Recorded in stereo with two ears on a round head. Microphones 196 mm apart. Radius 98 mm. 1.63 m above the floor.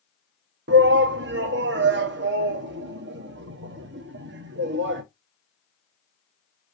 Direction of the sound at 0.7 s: 55° right (ahead or behind).